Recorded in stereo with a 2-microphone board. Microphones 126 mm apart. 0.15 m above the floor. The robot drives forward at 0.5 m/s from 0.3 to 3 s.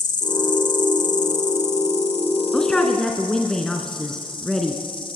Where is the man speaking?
5° left (ahead or behind), 1.3 m.